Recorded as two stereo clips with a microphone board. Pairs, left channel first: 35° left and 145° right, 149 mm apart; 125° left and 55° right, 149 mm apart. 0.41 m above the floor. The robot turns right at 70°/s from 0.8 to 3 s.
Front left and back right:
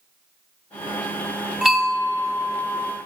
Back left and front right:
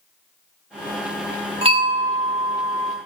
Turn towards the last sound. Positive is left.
turn(degrees=30)